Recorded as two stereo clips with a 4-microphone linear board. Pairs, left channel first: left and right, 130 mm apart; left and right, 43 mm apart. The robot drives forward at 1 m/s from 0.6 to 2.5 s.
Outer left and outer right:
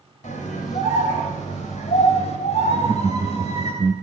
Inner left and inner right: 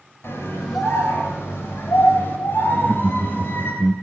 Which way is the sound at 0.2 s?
75° left (ahead or behind).